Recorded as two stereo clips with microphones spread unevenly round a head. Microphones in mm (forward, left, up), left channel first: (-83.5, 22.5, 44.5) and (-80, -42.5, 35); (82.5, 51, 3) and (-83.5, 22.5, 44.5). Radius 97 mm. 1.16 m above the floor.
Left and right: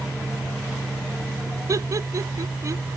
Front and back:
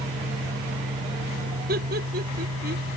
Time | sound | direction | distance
0.0 | a fan | straight behind | ?
1.7 | laughter | 125° right | ?